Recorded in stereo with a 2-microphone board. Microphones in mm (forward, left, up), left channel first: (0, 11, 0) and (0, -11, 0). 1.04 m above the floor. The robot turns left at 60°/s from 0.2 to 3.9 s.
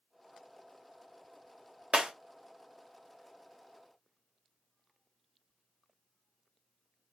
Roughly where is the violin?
No violin in this recording.